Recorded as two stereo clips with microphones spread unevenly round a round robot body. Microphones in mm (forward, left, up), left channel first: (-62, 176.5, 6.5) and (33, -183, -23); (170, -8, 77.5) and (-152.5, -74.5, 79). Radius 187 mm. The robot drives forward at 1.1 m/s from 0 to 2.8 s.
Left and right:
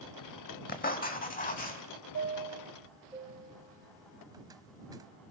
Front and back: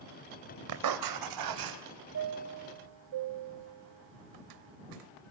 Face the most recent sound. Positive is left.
turn(degrees=-155)